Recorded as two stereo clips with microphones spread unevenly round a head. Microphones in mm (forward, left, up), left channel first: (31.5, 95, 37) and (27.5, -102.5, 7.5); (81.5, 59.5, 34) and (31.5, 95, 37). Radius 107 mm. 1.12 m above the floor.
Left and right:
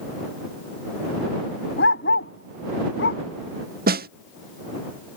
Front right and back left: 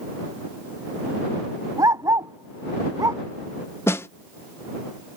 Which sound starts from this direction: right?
A snare drum, at 3.9 s.